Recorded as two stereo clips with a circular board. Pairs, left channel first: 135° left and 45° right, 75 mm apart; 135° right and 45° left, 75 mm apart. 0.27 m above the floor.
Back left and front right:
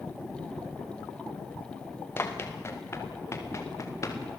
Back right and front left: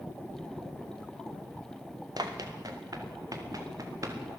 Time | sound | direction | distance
2.2 | running footsteps | 75° left | 4 m